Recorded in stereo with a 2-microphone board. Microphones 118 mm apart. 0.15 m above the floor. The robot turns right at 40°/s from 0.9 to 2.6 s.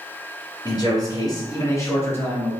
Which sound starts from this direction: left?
A man speaking, at 0.7 s.